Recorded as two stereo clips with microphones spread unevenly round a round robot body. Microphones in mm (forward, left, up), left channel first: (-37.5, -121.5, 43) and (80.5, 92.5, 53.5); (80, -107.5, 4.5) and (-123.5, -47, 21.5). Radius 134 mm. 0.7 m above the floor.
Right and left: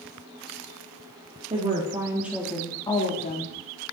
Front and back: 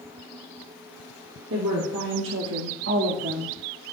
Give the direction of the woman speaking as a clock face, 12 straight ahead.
8 o'clock.